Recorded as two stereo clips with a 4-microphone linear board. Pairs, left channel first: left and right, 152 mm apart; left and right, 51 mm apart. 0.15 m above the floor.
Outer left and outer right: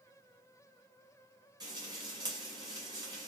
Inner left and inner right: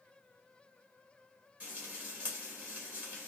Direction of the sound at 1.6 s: 25° right (ahead or behind).